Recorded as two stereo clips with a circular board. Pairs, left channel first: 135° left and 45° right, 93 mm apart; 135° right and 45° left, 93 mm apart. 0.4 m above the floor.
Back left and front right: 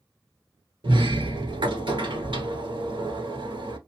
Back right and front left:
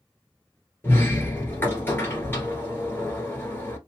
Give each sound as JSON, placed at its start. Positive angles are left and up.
{"t": 0.8, "sound": "a sliding door", "azimuth_deg": -70, "distance_m": 1.3}